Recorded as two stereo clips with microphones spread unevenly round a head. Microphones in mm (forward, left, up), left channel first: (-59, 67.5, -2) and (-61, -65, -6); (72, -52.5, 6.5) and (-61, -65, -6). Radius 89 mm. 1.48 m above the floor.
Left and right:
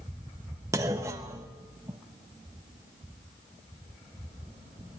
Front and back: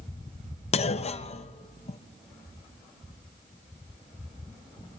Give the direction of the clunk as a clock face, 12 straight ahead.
1 o'clock.